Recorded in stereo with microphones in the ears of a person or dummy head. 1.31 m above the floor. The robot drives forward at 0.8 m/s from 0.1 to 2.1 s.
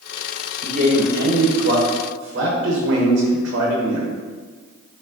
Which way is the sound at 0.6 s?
40° right (ahead or behind).